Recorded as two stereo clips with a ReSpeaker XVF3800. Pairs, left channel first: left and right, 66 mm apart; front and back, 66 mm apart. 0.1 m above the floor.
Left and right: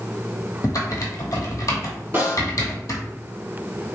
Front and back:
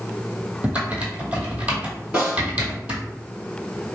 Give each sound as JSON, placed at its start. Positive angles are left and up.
{"t": 0.6, "sound": "typing on a keyboard", "azimuth_deg": 115, "distance_m": 0.9}
{"t": 2.1, "sound": "a snare drum", "azimuth_deg": -115, "distance_m": 2.0}